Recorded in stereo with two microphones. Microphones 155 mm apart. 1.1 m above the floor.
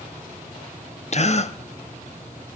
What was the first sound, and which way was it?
A gasp, 45° left (ahead or behind).